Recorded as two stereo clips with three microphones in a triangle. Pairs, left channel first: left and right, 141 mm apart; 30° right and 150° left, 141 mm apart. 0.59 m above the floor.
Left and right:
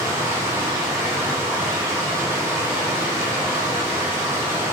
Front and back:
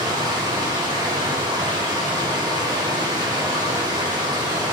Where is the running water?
155° right, 0.9 m.